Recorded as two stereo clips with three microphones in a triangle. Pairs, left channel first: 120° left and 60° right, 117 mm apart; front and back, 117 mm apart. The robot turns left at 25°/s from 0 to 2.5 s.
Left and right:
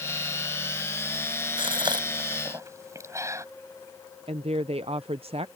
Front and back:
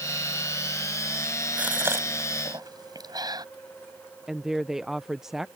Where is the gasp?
100° right; by 3.5 s 125° right.